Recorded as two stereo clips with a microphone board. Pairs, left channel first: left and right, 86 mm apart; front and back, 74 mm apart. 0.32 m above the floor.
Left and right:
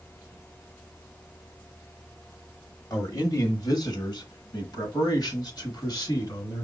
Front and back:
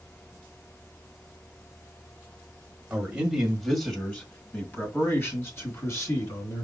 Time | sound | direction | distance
2.9 | a man speaking | 115° left | 1.2 m